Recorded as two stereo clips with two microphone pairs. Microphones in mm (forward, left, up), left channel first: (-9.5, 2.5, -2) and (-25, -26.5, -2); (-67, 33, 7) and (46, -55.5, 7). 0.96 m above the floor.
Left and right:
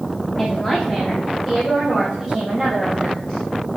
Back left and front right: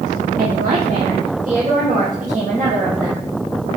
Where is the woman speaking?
15° right, 1.5 m; by 3.3 s 40° right, 5 m.